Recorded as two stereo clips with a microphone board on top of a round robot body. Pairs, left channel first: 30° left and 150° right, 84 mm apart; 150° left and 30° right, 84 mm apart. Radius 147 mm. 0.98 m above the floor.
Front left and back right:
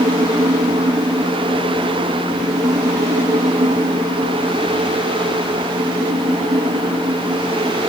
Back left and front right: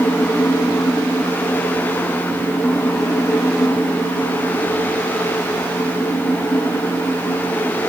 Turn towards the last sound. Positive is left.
No sound to turn to.